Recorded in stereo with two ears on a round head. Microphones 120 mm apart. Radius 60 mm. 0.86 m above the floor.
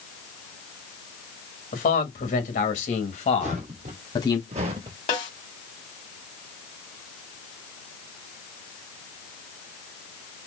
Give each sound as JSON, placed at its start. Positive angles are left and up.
{"t": 1.7, "sound": "a man speaking", "side_deg": 65, "distance_m": 1.9}
{"t": 3.4, "sound": "footsteps", "side_deg": -55, "distance_m": 1.7}
{"t": 5.1, "sound": "a snare drum", "side_deg": 50, "distance_m": 1.9}